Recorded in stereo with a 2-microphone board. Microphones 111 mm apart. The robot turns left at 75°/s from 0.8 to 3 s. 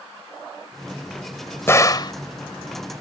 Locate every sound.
1.7 s a gunshot: 150° left; by 2.1 s 115° left